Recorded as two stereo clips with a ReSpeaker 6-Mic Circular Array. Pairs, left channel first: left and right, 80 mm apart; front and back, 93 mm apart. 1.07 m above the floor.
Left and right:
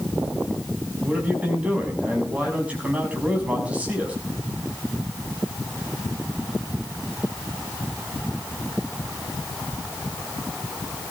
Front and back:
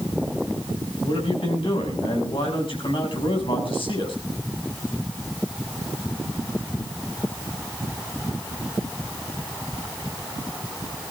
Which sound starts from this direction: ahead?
A man speaking, at 1.0 s.